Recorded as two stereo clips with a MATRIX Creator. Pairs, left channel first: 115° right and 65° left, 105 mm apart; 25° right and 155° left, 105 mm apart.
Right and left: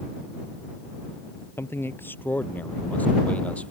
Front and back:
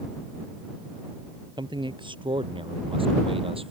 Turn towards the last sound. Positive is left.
turn(degrees=170)